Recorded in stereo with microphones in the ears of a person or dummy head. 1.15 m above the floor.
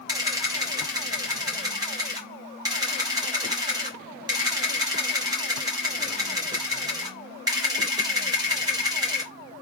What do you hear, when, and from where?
0.1 s a camera shutter: 20° right (ahead or behind), 0.8 m